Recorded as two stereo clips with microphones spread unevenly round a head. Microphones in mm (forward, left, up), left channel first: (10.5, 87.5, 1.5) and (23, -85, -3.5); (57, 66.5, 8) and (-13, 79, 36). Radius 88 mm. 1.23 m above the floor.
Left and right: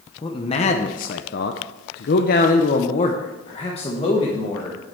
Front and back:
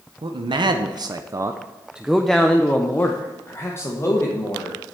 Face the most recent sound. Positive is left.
turn(degrees=30)